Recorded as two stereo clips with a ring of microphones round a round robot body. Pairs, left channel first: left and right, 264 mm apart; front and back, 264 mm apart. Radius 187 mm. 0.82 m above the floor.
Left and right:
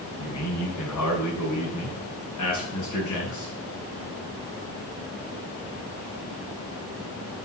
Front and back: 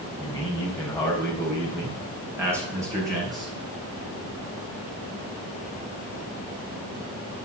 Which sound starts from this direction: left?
A man speaking, at 0.2 s.